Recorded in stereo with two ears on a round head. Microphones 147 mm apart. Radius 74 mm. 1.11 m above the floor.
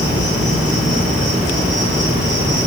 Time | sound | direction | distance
0.0 | an insect | 55° left (ahead or behind) | 3.5 m